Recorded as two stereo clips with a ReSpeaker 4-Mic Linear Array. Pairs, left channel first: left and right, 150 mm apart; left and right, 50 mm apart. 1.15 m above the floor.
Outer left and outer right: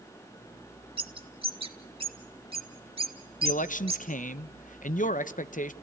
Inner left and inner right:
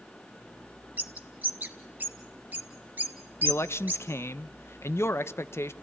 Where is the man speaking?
65° left (ahead or behind), 0.7 m.